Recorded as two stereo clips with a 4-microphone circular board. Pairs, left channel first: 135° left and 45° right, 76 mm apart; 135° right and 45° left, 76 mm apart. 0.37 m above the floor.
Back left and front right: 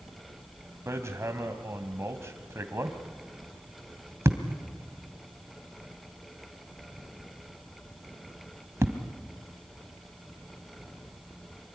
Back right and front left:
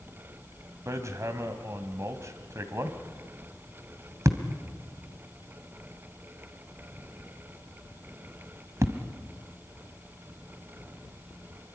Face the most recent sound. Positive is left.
turn(degrees=5)